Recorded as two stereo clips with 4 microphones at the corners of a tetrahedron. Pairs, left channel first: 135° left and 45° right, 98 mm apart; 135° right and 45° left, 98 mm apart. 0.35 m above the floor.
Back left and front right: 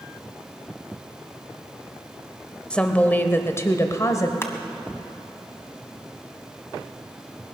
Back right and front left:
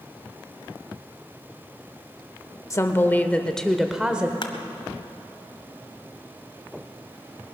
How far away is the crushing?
About 1.4 m.